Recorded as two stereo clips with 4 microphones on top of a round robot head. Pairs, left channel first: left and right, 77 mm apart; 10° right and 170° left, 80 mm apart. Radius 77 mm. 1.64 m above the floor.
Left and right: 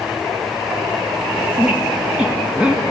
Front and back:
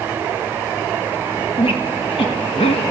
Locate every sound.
1.6 s a squeak: 10° right, 1.4 m